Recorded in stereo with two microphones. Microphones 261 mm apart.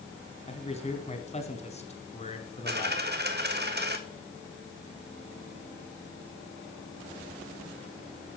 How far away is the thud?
I don't hear a thud.